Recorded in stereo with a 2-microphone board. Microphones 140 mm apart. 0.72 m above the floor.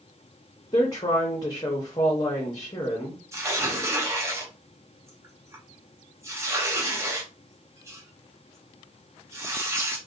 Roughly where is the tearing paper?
Centre.